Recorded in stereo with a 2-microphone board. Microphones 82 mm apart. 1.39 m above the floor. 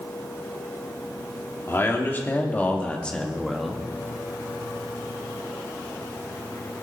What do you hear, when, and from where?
1.7 s a man speaking: 30° left (ahead or behind), 3 m; by 3.9 s 5° right (ahead or behind), 1.8 m